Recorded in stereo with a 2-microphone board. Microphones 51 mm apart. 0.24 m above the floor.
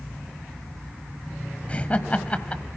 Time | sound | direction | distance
1.7 | laughter | 25° left (ahead or behind) | 1.0 m